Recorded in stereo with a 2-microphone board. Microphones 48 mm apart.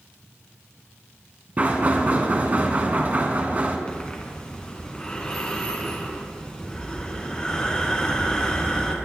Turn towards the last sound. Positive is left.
turn(degrees=20)  # may be behind; listen again after turning